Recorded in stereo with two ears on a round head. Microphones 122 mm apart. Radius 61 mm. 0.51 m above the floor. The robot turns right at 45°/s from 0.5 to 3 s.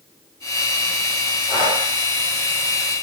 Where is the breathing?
10° left (ahead or behind), 1.9 m; by 1.8 s centre (ahead or behind), 1.9 m.